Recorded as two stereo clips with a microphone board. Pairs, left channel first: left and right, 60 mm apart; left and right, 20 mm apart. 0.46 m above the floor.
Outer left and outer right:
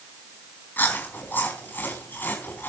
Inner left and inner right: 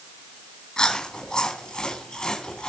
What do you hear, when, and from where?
0.8 s chewing: 35° left (ahead or behind), 4 m